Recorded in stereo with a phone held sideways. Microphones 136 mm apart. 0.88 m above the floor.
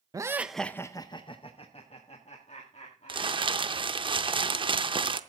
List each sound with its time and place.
0.1 s laughter: 25° right (ahead or behind), 0.5 m; by 4.1 s 60° left (ahead or behind), 2.5 m
3.1 s crumpling: 40° right (ahead or behind), 0.6 m